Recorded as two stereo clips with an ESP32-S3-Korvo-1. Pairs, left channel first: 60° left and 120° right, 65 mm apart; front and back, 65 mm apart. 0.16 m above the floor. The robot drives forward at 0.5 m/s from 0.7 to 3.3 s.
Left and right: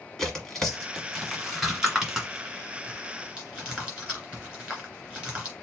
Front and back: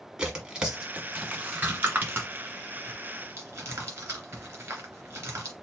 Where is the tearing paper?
130° left, 1.4 m; by 5.5 s 165° left, 2 m.